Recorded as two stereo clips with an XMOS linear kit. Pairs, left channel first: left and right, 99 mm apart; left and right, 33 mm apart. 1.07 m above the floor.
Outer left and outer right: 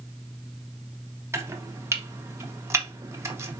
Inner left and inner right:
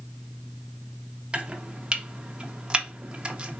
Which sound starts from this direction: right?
Chopping, at 1.3 s.